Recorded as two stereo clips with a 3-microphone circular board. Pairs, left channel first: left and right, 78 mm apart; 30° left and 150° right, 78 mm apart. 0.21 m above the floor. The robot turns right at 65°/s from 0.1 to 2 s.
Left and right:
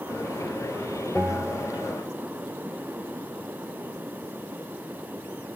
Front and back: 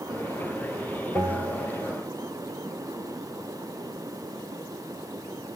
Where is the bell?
175° left, 2.5 m; by 1.9 s 135° right, 2.5 m.